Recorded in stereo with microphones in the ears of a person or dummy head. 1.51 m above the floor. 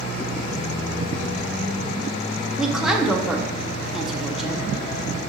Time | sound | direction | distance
2.6 | a woman speaking | centre (ahead or behind) | 0.6 m